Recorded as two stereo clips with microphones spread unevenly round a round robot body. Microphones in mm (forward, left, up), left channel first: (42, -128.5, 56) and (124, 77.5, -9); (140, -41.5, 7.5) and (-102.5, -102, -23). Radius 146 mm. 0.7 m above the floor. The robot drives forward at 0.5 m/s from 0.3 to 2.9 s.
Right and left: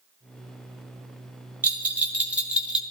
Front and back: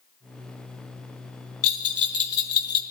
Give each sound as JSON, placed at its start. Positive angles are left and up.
{"t": 1.6, "sound": "a bell", "azimuth_deg": -15, "distance_m": 2.5}